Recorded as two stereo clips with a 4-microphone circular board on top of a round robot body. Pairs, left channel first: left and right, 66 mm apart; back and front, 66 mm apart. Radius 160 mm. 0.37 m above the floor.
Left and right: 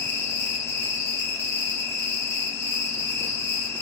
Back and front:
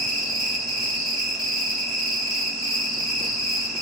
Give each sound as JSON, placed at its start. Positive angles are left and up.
{"t": 0.0, "sound": "an insect", "azimuth_deg": 95, "distance_m": 1.8}